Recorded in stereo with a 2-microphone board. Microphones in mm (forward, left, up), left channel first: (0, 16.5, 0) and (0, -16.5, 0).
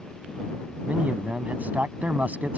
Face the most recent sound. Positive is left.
turn(degrees=-50)  # may be behind; listen again after turning